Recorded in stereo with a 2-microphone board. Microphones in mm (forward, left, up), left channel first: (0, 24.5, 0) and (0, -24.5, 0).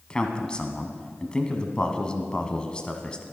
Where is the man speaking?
20° left (ahead or behind), 1.2 m.